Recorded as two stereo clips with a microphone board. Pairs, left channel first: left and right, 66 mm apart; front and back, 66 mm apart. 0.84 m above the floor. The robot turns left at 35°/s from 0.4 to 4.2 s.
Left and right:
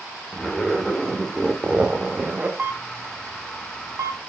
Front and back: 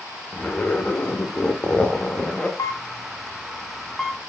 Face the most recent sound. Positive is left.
turn(degrees=-85)